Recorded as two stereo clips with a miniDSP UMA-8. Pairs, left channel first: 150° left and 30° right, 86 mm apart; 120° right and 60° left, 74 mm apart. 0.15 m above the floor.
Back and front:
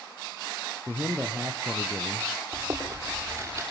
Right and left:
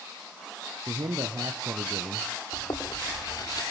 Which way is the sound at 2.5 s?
90° right.